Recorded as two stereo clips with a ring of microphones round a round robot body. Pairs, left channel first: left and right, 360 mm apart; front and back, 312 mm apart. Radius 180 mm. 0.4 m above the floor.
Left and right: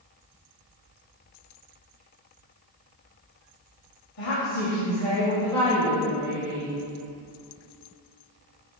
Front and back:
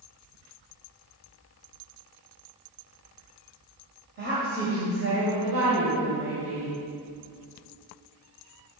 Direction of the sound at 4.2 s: 130° left.